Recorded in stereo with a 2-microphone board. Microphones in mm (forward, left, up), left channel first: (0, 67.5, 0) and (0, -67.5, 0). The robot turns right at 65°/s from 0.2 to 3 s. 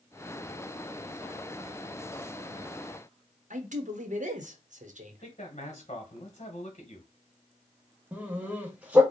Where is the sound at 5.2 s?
50° left (ahead or behind), 1.3 m.